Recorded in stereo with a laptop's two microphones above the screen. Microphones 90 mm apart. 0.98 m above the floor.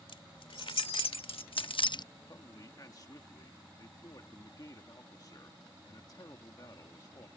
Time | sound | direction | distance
0.1 | keys jangling | 80° left | ?
2.3 | a man speaking | 45° left (ahead or behind) | ?